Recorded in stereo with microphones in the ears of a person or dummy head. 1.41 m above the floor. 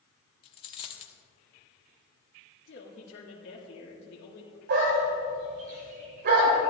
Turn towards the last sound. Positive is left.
turn(degrees=-55)  # may be behind; listen again after turning